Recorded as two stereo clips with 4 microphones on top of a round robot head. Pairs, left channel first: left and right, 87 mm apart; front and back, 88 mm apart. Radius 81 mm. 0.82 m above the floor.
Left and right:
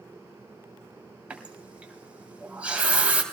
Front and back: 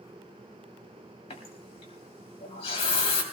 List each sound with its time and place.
1.3 s a running tap: 15° right, 3 m